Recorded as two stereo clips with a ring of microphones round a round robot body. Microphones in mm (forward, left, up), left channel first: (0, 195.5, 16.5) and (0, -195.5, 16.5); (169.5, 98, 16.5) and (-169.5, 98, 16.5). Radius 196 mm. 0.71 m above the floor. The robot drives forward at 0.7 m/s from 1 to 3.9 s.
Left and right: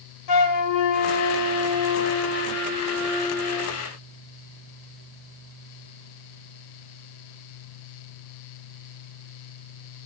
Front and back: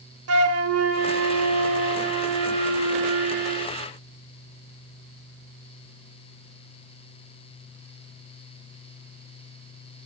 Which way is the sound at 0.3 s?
130° left.